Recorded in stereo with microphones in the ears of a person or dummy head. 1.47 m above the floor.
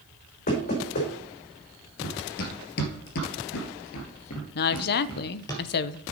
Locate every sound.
0.5 s knocking: 50° left (ahead or behind), 5 m
2.0 s running footsteps: 55° left (ahead or behind), 2.5 m; by 5.5 s 20° left (ahead or behind), 2 m
4.5 s a woman speaking: 55° left (ahead or behind), 0.7 m